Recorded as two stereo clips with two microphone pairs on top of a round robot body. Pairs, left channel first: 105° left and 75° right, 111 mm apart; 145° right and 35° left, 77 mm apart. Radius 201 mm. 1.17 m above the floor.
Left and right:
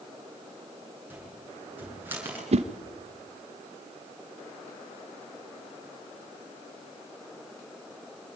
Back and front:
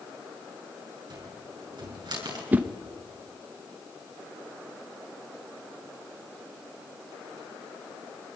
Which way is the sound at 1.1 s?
Straight ahead.